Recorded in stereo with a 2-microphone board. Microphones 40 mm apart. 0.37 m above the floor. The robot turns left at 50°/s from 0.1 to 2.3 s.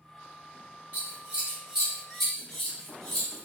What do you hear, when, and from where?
0.9 s scissors: 50° right (ahead or behind), 1.1 m; by 3.5 s 10° left (ahead or behind), 1.1 m